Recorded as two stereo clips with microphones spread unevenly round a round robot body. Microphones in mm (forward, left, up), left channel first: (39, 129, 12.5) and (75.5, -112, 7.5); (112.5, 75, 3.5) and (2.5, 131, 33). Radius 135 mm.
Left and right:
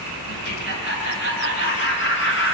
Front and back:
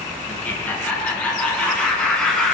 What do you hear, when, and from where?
0.3 s laughter: 50° left, 7.5 m; by 2.5 s 60° left, 6.5 m